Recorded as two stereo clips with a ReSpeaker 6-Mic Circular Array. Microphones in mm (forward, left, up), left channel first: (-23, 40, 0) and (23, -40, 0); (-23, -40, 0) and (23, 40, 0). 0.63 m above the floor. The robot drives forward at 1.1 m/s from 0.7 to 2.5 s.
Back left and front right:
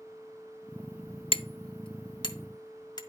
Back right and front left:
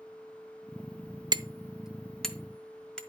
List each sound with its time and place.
1.3 s hammering: 100° left, 0.5 m; by 3.0 s 160° left, 1.5 m